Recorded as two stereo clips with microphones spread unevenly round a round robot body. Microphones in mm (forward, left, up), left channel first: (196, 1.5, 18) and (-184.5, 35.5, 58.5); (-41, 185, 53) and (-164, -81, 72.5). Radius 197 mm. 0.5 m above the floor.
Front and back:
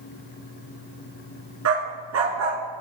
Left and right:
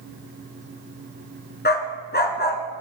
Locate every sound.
1.6 s a dog barking: 125° left, 1.8 m